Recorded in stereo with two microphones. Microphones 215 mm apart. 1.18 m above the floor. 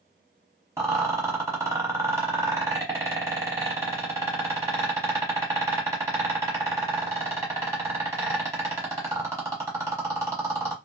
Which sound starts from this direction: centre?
A rattle, at 0.8 s.